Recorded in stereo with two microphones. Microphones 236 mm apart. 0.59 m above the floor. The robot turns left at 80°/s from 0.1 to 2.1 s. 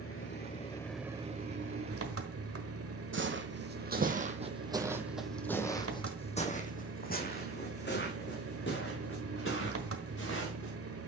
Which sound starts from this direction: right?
Footsteps, at 3.1 s.